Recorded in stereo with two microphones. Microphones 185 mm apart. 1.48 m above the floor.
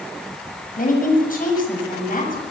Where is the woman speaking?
50° left (ahead or behind), 7.5 m.